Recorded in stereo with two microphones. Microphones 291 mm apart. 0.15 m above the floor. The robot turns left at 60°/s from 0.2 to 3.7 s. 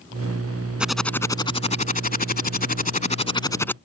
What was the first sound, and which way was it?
Typing on a keyboard, 170° right.